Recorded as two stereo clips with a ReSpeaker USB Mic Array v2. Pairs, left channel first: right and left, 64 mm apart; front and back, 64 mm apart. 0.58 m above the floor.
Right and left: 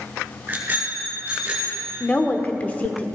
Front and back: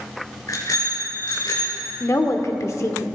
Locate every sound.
0.5 s a bicycle bell: 30° left, 5.5 m; by 1.9 s 15° left, 5.5 m
2.0 s a woman speaking: 25° right, 1.1 m